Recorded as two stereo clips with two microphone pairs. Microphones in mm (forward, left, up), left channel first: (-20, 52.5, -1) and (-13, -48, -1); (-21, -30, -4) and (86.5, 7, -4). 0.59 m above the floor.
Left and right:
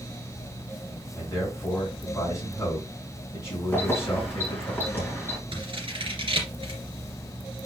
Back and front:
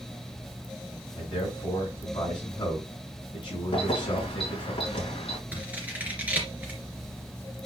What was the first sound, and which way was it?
A man speaking, 155° left.